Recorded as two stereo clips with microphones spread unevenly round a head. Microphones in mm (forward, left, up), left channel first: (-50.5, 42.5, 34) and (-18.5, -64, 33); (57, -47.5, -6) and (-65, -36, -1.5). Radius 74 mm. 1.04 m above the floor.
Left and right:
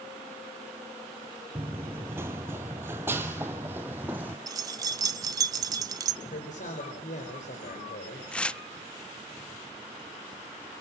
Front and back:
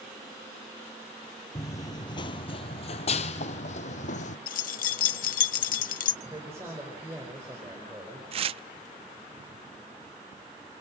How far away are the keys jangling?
About 0.9 m.